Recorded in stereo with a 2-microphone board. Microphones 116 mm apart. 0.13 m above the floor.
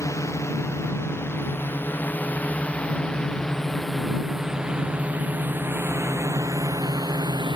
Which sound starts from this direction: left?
A drone, at 0.0 s.